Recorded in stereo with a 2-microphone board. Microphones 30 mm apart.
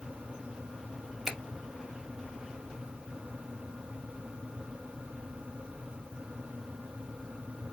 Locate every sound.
1.2 s a finger snap: 15° right (ahead or behind), 1.8 m